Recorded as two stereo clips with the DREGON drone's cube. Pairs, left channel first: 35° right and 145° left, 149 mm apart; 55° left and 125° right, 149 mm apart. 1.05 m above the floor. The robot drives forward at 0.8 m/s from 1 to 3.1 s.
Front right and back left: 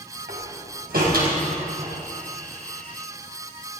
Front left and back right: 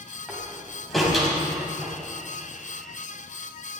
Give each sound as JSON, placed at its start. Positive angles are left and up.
{"t": 0.3, "sound": "a door slam", "azimuth_deg": 145, "distance_m": 4.5}